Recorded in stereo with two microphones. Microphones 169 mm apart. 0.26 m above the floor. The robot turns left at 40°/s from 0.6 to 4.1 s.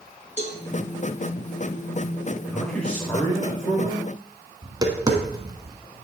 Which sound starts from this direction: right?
Tapping, at 4.6 s.